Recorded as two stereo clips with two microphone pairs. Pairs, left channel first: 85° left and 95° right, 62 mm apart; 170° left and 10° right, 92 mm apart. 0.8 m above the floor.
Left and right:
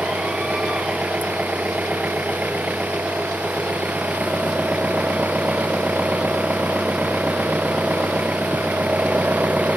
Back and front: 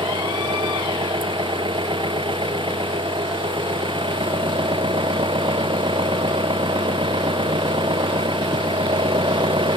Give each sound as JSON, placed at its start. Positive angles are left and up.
{"t": 0.0, "sound": "an engine running", "azimuth_deg": -30}